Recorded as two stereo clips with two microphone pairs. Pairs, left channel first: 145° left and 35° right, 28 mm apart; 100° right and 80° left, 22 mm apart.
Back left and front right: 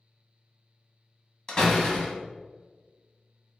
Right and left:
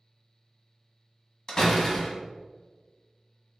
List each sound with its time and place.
1.5 s a door slam: 155° right, 1.0 m